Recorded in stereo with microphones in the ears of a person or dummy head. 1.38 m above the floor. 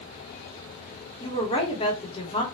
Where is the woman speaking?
30° left (ahead or behind), 1.4 m.